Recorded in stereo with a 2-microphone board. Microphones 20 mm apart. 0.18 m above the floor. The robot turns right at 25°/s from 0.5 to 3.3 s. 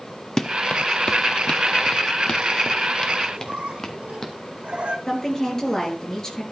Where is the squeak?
80° right, 2.0 m.